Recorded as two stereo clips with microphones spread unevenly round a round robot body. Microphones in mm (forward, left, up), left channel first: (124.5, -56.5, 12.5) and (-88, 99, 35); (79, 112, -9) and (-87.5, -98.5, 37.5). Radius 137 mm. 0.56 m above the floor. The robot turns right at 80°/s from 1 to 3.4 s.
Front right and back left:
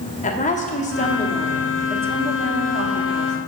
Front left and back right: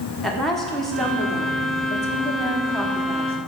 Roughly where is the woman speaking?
Ahead.